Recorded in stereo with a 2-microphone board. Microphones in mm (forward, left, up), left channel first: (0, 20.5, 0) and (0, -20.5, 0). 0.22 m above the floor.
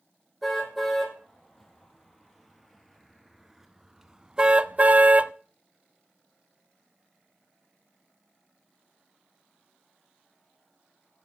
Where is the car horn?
5° left (ahead or behind), 4 m; by 5.3 s 35° right (ahead or behind), 0.6 m.